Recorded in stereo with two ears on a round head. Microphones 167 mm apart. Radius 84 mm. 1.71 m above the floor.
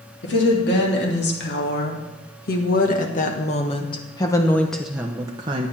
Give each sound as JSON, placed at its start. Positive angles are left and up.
{"t": 0.2, "sound": "a woman speaking", "side_deg": 65, "distance_m": 3.0}